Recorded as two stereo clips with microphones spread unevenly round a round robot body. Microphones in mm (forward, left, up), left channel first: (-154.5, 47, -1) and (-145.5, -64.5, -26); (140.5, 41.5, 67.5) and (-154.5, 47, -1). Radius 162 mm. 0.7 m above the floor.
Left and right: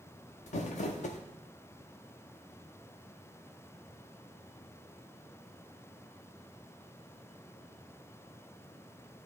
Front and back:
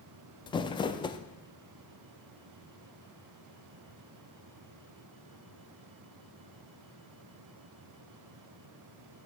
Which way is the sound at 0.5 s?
80° left.